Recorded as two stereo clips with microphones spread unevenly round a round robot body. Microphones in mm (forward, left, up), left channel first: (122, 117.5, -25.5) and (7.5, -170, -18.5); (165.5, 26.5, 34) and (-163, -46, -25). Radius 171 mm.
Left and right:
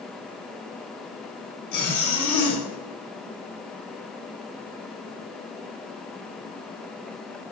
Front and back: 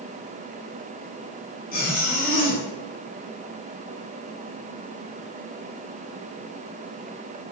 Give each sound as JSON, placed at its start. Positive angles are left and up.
{"t": 1.7, "sound": "a zipper", "azimuth_deg": 80, "distance_m": 1.2}